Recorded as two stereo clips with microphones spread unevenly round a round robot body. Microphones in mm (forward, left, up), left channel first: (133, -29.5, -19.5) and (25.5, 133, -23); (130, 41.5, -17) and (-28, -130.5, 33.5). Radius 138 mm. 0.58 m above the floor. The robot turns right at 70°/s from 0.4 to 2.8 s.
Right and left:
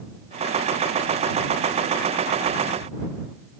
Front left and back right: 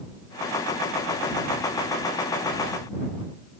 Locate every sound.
Only background noise.